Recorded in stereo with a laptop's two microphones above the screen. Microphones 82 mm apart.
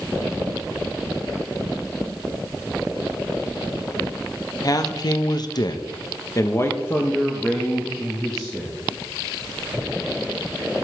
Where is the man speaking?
45° left (ahead or behind), 1.2 m; by 8.8 s centre (ahead or behind), 1.9 m.